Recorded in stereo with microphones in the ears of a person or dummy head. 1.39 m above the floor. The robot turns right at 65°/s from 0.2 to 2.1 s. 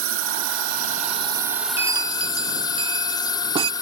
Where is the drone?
70° right (ahead or behind); by 3.8 s 20° left (ahead or behind).